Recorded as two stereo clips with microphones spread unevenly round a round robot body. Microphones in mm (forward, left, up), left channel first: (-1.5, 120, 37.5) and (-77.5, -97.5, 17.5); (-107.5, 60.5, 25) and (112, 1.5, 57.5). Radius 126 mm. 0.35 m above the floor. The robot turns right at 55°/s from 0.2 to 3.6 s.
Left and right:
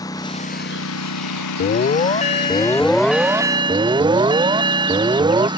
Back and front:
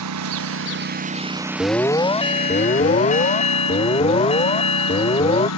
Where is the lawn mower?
5° right; by 5.6 s straight behind.